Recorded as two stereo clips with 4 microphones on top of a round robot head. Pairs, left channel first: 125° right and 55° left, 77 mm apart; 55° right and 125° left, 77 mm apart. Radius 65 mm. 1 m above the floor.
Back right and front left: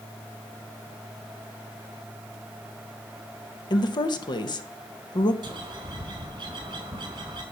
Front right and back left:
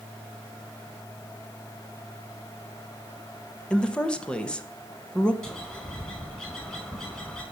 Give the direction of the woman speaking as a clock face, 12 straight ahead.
4 o'clock.